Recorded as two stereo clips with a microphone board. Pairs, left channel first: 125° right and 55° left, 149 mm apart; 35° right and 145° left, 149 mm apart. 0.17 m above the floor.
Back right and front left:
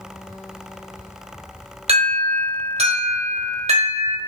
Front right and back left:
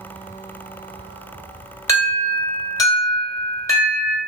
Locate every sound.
1.9 s an alarm: 30° left, 1.3 m